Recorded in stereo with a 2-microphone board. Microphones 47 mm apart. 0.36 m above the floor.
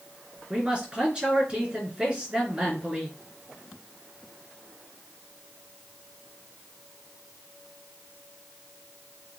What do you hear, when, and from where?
0.5 s a man speaking: 20° right (ahead or behind), 4 m